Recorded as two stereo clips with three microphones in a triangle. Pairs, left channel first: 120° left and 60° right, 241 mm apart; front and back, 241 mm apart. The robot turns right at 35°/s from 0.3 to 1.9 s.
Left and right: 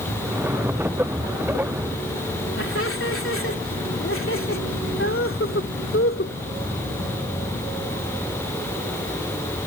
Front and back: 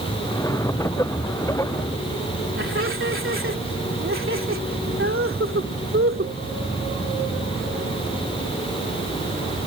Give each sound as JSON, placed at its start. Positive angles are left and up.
{"t": 2.6, "sound": "laughter", "azimuth_deg": 150}